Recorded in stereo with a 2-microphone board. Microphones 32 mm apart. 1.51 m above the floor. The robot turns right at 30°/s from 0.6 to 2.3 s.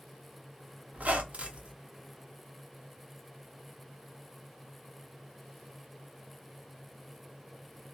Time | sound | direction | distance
0.9 | a squeak | 50° right (ahead or behind) | 0.5 m